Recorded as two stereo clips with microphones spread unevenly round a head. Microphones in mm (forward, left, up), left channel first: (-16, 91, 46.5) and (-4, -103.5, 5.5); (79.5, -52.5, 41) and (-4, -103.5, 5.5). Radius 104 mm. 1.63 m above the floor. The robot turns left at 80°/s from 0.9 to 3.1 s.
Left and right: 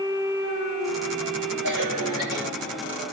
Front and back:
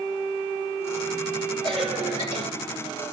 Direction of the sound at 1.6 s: 110° right.